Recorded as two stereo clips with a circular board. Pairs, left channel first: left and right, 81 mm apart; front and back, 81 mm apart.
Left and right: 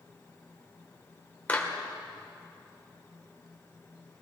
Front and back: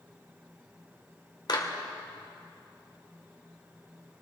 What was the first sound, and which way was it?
A clap, 20° left.